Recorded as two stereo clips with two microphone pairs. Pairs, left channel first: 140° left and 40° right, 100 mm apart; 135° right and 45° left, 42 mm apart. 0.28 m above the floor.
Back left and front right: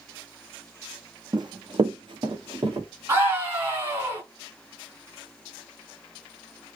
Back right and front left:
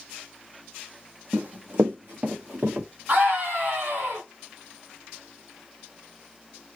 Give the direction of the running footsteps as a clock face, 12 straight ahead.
12 o'clock.